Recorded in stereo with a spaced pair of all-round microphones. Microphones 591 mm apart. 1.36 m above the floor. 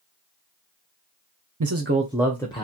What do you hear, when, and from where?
1.6 s a man speaking: 35° right (ahead or behind), 0.5 m; by 2.6 s 10° left (ahead or behind), 0.9 m